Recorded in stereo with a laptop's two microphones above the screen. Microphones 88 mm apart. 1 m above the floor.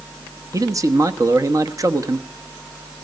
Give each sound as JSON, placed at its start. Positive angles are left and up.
{"t": 0.5, "sound": "a man speaking", "side_deg": -40, "distance_m": 1.2}